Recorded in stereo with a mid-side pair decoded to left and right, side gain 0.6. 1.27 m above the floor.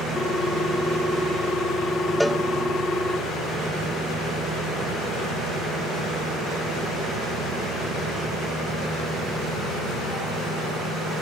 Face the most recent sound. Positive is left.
turn(degrees=0)